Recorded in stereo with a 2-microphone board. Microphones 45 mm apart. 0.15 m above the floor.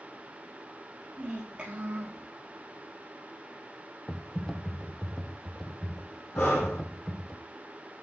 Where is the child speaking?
25° right (ahead or behind), 3 m.